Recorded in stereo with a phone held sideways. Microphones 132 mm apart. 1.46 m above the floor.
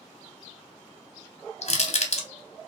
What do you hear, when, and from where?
1.6 s crushing: 55° left (ahead or behind), 0.6 m